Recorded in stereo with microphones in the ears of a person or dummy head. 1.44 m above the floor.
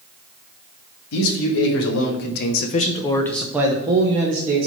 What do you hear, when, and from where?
1.1 s a man speaking: 80° left, 1.7 m; by 4.7 s 45° right (ahead or behind), 1.3 m